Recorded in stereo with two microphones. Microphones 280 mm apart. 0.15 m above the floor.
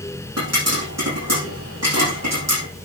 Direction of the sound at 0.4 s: 65° right (ahead or behind).